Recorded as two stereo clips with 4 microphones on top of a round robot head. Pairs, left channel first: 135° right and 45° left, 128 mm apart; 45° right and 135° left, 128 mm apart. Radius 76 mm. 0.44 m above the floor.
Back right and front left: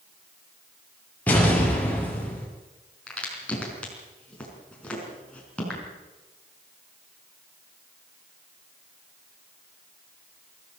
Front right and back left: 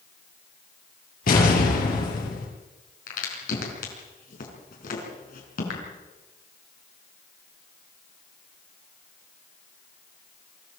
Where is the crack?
55° right, 5 m.